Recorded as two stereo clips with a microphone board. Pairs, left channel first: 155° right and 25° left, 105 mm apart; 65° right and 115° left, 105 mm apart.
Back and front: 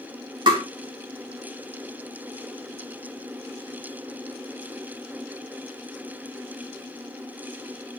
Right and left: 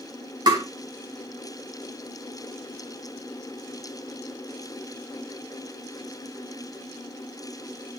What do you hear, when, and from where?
0.5 s tapping: 65° left, 2.5 m